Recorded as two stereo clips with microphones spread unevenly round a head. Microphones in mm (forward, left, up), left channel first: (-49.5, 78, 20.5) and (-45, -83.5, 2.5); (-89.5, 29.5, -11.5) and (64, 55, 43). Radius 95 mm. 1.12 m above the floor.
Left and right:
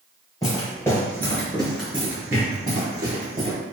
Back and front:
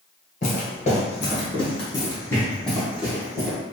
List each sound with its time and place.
0.4 s footsteps: 140° left, 1.5 m; by 3.6 s 40° right, 1.5 m